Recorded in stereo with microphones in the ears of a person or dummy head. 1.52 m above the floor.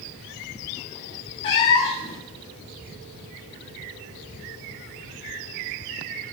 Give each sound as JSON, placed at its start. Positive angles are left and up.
{"t": 1.4, "sound": "a cat meowing", "side_deg": 20, "distance_m": 1.0}